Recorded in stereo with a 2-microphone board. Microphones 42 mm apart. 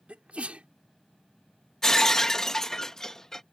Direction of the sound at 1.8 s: 10° left (ahead or behind).